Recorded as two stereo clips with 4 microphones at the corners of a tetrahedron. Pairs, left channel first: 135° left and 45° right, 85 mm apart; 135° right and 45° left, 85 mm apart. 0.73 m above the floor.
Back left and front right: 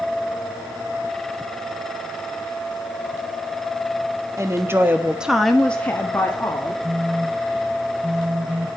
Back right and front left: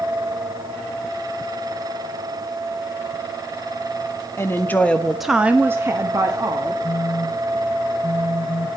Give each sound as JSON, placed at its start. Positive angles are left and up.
{"t": 4.4, "sound": "a woman speaking", "azimuth_deg": -85, "distance_m": 1.3}
{"t": 6.8, "sound": "a phone buzzing", "azimuth_deg": -110, "distance_m": 0.7}